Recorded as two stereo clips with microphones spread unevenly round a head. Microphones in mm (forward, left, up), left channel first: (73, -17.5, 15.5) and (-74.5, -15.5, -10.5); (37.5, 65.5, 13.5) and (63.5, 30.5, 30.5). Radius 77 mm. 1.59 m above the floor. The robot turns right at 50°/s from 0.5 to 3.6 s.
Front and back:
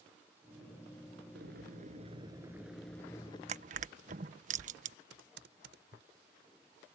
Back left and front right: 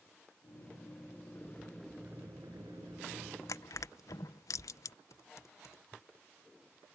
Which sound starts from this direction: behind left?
Crushing, at 3.5 s.